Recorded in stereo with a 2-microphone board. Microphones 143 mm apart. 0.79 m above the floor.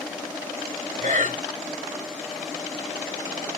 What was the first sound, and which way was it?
Breathing, 65° right (ahead or behind).